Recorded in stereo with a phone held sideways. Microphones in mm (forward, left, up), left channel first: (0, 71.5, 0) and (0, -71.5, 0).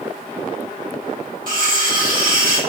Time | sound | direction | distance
1.5 | cutlery clinking | 70° right (ahead or behind) | 1.1 m